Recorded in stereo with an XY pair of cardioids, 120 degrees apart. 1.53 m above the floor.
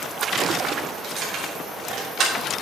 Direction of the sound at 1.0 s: 50° right.